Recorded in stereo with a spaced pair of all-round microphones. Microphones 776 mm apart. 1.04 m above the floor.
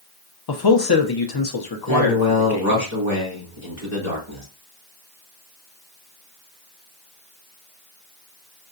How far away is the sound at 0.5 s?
About 0.5 m.